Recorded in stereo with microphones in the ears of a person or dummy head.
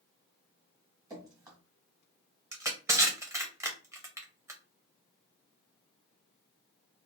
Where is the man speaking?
I don't hear a man speaking.